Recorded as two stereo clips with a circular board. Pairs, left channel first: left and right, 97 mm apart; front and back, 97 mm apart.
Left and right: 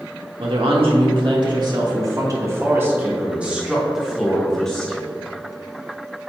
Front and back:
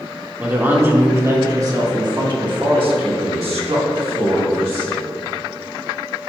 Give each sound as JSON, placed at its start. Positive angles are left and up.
{"t": 0.4, "sound": "a woman speaking", "azimuth_deg": -110, "distance_m": 1.8}